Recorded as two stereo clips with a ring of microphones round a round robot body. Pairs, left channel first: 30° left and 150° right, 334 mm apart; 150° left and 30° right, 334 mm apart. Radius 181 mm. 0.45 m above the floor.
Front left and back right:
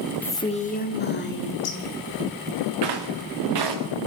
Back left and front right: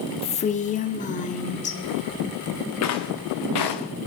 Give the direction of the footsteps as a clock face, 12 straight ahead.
6 o'clock.